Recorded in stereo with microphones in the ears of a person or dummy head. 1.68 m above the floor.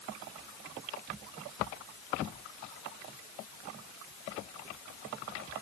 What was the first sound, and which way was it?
Only background noise.